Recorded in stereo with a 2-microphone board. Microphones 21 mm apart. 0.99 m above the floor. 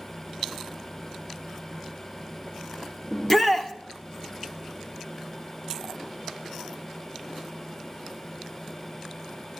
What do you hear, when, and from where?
3.1 s a shout: 20° left (ahead or behind), 1.3 m